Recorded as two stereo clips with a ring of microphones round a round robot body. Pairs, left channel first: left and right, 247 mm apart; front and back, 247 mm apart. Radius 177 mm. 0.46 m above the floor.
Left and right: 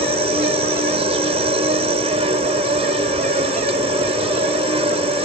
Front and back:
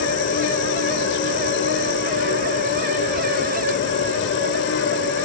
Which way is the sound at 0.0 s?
30° right.